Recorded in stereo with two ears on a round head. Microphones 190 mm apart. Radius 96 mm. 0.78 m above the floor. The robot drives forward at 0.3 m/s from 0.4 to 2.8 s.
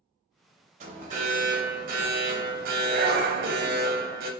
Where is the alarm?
35° right (ahead or behind), 0.9 m; by 4.3 s 45° right (ahead or behind), 0.7 m.